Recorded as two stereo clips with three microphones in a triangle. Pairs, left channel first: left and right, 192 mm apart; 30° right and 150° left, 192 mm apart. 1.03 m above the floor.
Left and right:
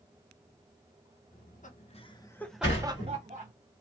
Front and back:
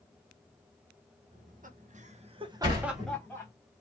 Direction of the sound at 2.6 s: 85° left.